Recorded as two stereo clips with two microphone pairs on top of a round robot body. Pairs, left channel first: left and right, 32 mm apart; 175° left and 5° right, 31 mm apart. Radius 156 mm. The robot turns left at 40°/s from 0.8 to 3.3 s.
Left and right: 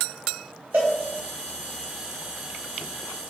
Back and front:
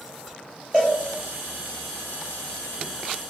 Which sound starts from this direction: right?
A cowbell, at 0.7 s.